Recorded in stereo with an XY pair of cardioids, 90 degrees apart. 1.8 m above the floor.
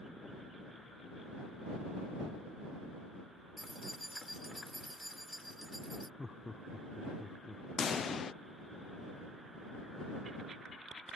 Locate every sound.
3.6 s keys jangling: straight ahead
6.2 s laughter: 20° left
7.8 s a pop: 55° left